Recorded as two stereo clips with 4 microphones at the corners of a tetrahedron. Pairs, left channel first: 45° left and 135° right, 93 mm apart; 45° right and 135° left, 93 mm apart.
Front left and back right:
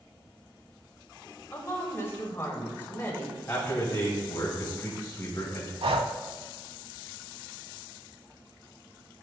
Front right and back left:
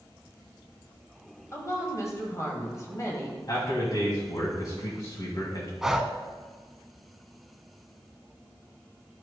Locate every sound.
1.5 s a woman speaking: 10° right, 2.0 m
3.5 s a man speaking: 20° right, 1.7 m
5.8 s breathing: 140° right, 0.6 m